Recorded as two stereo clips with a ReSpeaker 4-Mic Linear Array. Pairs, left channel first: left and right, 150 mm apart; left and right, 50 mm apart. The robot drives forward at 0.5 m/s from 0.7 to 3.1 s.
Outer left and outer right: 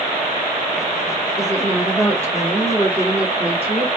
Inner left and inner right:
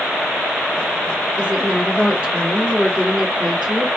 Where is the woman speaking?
20° right (ahead or behind), 2.5 m; by 3.9 s 15° right (ahead or behind), 3.5 m.